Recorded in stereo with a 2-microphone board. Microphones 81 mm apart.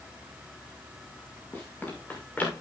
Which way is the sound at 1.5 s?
20° left (ahead or behind).